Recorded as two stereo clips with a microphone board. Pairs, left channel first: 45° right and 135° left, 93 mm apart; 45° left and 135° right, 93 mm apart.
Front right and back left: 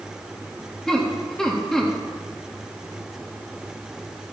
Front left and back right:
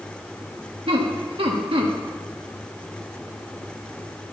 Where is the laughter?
130° right, 2.0 m.